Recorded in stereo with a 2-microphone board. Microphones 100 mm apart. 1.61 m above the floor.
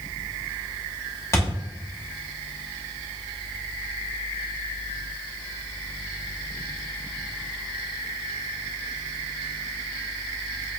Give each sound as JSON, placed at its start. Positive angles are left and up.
{"t": 1.3, "sound": "a thud", "side_deg": 30, "distance_m": 1.2}